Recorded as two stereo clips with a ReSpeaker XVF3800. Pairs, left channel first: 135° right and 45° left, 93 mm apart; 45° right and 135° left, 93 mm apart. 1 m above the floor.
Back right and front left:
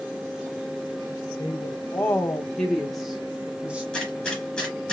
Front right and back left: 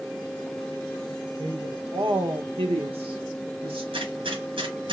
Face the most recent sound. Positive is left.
turn(degrees=140)